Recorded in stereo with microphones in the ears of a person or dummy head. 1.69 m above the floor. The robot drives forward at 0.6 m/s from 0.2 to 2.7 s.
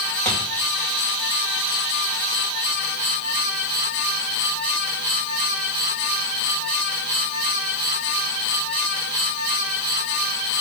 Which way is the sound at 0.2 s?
10° left (ahead or behind).